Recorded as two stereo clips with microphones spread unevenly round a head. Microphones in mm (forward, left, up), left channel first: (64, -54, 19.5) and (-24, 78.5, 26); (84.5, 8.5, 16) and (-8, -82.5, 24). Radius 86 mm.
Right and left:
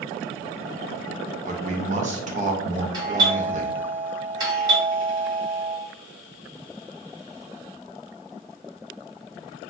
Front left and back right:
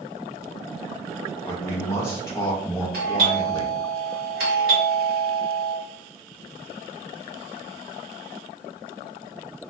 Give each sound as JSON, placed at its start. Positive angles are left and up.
{"t": 1.4, "sound": "a man speaking", "azimuth_deg": 115, "distance_m": 0.6}
{"t": 2.9, "sound": "a doorbell", "azimuth_deg": -165, "distance_m": 1.1}